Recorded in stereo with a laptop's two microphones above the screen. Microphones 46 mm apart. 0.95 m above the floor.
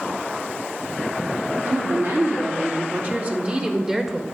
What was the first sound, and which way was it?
A woman speaking, 60° right (ahead or behind).